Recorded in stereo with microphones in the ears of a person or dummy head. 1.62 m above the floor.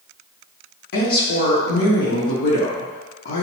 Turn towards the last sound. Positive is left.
turn(degrees=60)  # may be behind; listen again after turning